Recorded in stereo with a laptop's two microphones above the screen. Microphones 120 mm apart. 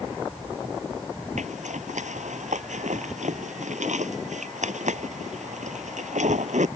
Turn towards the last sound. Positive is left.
turn(degrees=-85)